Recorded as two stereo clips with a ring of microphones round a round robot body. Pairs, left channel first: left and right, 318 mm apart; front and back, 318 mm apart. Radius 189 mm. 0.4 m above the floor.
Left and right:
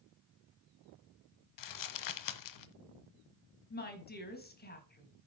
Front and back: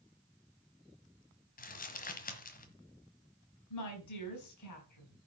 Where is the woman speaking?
30° left, 4.5 m.